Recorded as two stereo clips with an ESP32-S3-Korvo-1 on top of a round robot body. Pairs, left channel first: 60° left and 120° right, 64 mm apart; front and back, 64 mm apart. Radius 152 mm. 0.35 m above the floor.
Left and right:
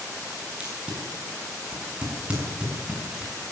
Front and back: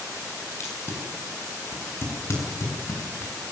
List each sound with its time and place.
0.6 s tape being pulled: 50° right, 6.5 m